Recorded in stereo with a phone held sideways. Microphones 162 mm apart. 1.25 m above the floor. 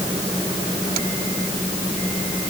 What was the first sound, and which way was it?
Only background noise.